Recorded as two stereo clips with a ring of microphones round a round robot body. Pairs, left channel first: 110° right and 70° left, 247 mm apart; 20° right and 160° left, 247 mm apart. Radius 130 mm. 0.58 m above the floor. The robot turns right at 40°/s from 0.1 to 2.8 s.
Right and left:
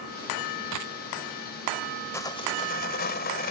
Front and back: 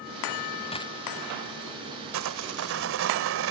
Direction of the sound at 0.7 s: 45° left.